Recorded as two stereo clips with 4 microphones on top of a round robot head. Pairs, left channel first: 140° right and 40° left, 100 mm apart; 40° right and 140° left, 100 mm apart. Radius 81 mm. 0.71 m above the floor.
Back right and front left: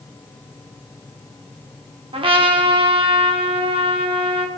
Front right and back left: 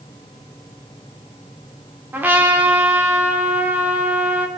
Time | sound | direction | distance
2.1 | a trumpet | 70° left | 1.7 m